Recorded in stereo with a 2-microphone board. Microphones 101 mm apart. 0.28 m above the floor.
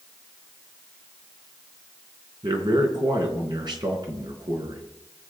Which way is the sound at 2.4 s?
50° right (ahead or behind).